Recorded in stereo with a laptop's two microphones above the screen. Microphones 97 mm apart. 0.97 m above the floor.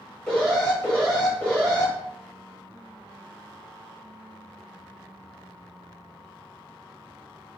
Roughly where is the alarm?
Centre.